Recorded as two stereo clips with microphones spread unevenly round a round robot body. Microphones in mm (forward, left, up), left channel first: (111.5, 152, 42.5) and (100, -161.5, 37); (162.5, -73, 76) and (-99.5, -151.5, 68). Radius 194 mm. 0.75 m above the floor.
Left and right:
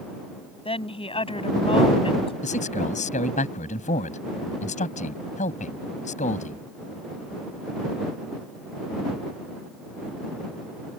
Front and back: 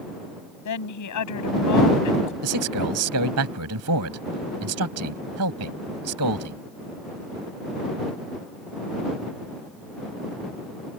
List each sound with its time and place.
0.7 s a woman speaking: 15° left
2.4 s a man speaking: 160° left